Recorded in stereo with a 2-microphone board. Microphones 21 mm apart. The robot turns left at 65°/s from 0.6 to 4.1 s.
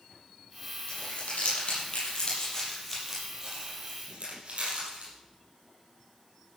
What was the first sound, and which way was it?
Crumpling, 55° left (ahead or behind).